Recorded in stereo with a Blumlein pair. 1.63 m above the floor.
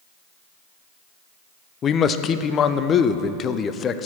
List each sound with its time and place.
1.8 s a man speaking: 25° left, 0.5 m